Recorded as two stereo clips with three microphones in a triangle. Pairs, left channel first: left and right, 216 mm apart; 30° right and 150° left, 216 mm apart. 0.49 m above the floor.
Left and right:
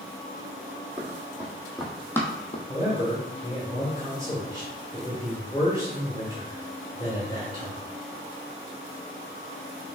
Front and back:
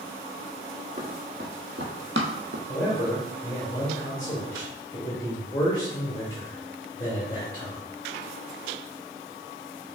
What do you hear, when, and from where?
1.0 s running footsteps: 160° right, 1.8 m; by 2.6 s 145° left, 0.9 m
2.7 s a man speaking: 35° left, 1.4 m